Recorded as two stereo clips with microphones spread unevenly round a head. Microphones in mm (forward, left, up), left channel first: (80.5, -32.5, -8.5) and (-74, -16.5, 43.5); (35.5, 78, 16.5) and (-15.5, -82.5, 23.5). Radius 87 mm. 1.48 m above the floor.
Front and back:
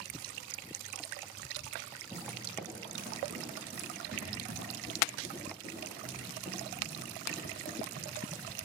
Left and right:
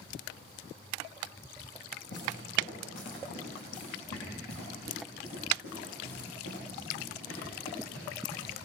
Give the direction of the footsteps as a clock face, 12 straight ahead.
9 o'clock.